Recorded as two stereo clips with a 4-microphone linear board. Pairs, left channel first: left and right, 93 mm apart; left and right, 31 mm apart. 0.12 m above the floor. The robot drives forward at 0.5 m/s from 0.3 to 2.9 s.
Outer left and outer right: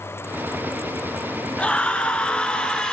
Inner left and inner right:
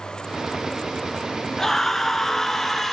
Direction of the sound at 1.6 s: 15° left (ahead or behind).